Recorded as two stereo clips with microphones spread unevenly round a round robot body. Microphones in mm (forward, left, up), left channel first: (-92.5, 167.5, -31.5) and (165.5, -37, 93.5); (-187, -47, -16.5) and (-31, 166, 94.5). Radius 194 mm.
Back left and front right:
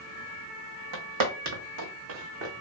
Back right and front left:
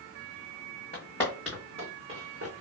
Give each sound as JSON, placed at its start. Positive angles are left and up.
{"t": 0.9, "sound": "footsteps", "azimuth_deg": -45, "distance_m": 1.0}